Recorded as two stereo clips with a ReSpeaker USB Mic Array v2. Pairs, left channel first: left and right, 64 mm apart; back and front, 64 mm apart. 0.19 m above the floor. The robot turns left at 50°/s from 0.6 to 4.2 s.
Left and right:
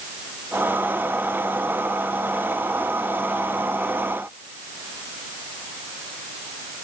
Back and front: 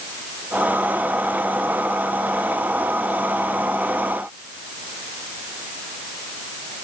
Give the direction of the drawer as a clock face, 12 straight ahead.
I don't hear a drawer.